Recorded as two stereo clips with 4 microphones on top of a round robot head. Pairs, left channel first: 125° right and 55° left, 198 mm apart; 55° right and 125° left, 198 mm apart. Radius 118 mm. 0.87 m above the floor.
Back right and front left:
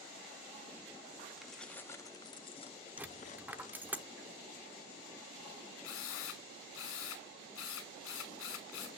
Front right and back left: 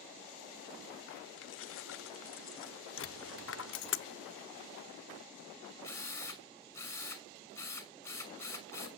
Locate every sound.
1.4 s keys jangling: 35° right, 1.1 m; by 3.9 s 75° right, 2.5 m
3.0 s a dropped coin: 30° right, 0.7 m
5.8 s a drill: 130° right, 6 m